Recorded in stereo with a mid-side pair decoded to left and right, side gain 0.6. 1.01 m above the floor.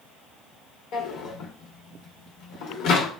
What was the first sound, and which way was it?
A drawer, 65° left.